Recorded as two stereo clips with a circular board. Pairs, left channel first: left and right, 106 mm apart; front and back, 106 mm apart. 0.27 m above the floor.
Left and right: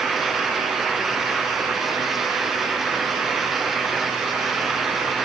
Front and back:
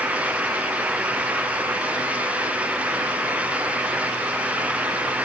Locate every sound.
Only background noise.